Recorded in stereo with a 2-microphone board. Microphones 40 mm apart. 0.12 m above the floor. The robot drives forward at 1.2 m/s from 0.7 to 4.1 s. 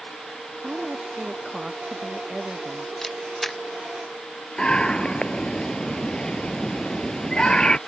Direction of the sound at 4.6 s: 20° left (ahead or behind).